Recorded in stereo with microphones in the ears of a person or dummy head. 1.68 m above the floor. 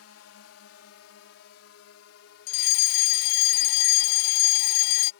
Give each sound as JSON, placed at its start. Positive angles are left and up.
{"t": 0.0, "sound": "a drone", "side_deg": 80}
{"t": 2.5, "sound": "a fire alarm", "side_deg": 55}